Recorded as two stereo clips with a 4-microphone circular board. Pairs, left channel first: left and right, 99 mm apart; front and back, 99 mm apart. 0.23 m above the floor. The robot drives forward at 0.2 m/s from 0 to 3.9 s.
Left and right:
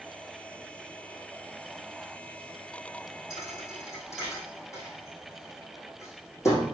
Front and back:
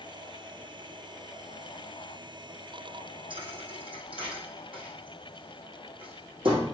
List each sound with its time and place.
3.3 s a thud: 150° left, 3.5 m